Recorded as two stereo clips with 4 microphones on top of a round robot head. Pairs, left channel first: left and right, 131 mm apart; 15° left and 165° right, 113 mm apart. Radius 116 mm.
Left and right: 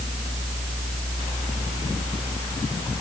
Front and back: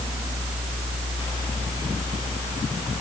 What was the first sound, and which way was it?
Only background noise.